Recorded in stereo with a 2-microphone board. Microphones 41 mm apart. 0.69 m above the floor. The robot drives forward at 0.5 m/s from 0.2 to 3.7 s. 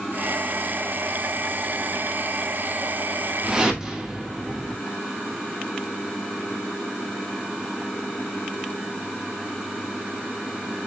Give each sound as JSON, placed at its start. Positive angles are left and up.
{"t": 3.4, "sound": "a whoosh", "side_deg": -15, "distance_m": 0.7}